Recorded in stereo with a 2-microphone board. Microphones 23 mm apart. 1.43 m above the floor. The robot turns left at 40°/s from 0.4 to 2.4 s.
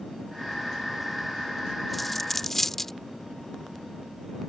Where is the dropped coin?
Centre (ahead or behind); by 2.9 s 10° left (ahead or behind).